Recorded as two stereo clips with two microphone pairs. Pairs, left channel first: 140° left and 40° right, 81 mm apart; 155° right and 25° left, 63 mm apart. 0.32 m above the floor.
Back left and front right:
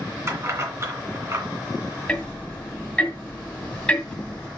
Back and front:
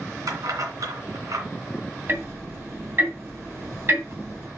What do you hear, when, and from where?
0.3 s keys jangling: 15° left, 2.5 m
2.1 s ticking: 65° left, 2 m